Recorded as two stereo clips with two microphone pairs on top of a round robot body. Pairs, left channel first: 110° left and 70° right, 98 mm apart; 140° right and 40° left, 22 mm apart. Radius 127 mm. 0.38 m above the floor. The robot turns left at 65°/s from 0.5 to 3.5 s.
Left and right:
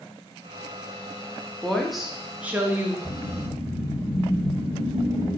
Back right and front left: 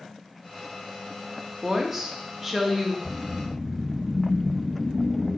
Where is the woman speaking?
50° left, 0.8 m; by 3.0 s 35° right, 0.8 m.